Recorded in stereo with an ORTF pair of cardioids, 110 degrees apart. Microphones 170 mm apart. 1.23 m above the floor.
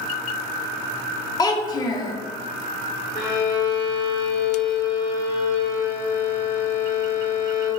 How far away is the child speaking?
About 0.5 m.